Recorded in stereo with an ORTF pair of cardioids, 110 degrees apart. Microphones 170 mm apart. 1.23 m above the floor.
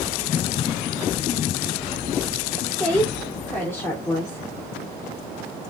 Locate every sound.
2.8 s a woman speaking: 5° left, 3 m; by 4.5 s 20° left, 3 m